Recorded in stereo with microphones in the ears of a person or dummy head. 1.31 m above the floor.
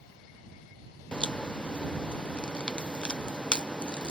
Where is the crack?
Centre (ahead or behind).